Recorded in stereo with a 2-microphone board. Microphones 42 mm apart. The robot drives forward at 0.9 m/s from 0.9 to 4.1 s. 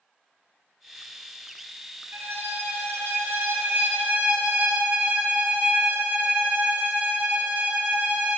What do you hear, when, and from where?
2.1 s a violin: 65° right (ahead or behind), 1.4 m; by 8.4 s 45° right (ahead or behind), 1.8 m